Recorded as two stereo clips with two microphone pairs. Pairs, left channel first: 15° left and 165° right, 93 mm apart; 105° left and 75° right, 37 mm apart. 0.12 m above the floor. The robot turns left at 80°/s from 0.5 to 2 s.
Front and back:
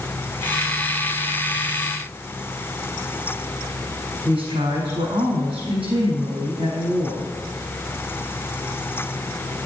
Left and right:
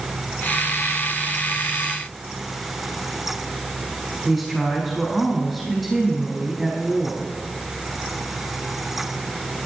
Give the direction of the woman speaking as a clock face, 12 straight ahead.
6 o'clock.